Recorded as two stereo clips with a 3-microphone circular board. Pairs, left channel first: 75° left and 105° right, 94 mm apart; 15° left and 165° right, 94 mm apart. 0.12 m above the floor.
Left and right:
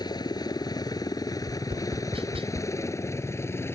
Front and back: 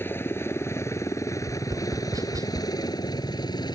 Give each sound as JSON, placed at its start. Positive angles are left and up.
{"t": 0.0, "sound": "a helicopter", "azimuth_deg": 70}
{"t": 1.4, "sound": "tapping", "azimuth_deg": -115}